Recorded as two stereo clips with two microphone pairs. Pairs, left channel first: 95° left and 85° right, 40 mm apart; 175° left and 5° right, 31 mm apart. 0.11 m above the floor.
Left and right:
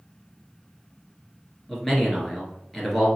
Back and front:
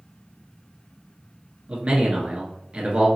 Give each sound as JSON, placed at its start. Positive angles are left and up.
{"t": 1.7, "sound": "a man speaking", "azimuth_deg": 15, "distance_m": 1.4}